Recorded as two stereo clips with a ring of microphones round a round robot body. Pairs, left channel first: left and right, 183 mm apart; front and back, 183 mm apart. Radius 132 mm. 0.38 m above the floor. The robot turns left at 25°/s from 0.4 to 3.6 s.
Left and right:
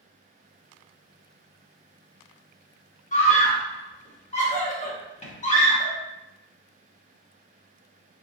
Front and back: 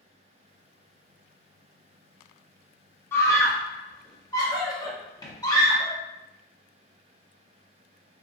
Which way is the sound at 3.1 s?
75° left.